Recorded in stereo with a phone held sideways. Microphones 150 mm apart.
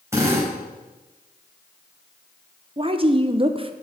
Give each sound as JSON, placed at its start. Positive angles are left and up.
{"t": 0.1, "sound": "a drill", "side_deg": -20, "distance_m": 4.0}
{"t": 2.8, "sound": "a woman speaking", "side_deg": -35, "distance_m": 0.7}